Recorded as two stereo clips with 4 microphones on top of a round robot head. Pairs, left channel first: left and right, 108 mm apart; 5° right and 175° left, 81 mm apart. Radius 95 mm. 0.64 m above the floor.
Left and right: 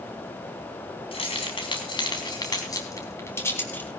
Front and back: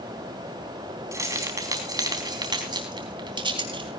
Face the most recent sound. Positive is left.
turn(degrees=165)